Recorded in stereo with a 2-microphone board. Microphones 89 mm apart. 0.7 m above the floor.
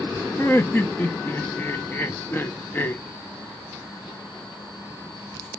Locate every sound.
0.4 s laughter: 25° left (ahead or behind), 0.5 m